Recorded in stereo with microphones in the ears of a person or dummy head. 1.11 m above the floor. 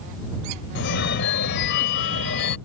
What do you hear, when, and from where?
0.8 s a phone ringing: 60° left (ahead or behind)